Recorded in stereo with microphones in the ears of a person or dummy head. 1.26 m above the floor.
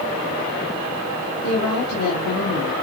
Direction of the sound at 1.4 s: 80° left.